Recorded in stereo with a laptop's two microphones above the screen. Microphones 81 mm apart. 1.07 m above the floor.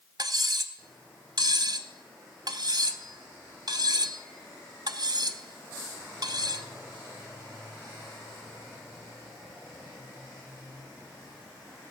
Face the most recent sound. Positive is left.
turn(degrees=-50)  # may be behind; listen again after turning